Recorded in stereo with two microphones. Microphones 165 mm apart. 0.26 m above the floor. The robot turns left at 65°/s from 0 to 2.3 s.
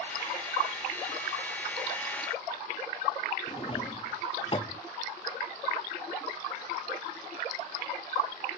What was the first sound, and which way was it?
A drawer, 35° left (ahead or behind).